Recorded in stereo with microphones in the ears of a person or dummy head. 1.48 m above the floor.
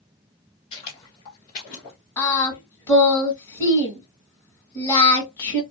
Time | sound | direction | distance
0.7 | footsteps | 35° left (ahead or behind) | 2 m
2.2 | singing | 20° left (ahead or behind) | 1.7 m